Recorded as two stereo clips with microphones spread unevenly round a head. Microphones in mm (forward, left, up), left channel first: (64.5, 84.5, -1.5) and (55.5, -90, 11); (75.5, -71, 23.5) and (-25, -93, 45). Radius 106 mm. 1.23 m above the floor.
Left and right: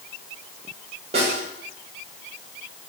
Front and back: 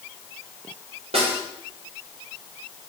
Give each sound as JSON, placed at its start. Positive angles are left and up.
{"t": 1.1, "sound": "a snare drum", "azimuth_deg": -155, "distance_m": 5.5}